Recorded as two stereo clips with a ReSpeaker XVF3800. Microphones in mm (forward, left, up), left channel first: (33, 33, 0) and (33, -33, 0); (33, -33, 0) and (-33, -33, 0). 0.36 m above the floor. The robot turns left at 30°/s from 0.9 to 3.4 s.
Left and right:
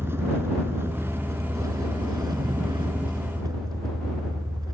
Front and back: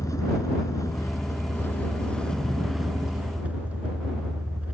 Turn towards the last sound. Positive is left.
turn(degrees=-110)